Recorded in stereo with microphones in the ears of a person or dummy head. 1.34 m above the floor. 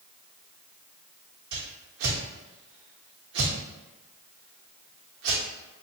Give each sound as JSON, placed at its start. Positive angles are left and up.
{"t": 1.5, "sound": "a whoosh", "side_deg": -65, "distance_m": 1.1}